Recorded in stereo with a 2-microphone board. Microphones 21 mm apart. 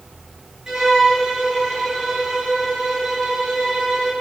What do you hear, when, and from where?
0.7 s a violin: 25° right (ahead or behind), 6 m